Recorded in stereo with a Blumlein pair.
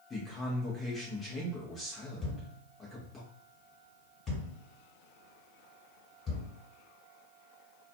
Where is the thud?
25° left, 1.7 m.